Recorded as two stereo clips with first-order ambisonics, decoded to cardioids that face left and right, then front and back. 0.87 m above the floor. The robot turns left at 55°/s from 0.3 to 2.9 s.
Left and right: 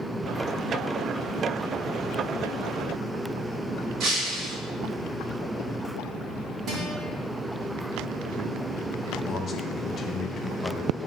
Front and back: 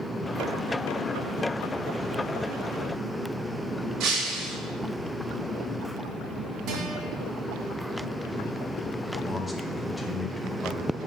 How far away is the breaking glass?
About 2.5 m.